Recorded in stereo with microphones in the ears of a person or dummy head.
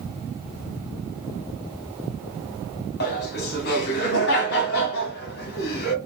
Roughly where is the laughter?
Left.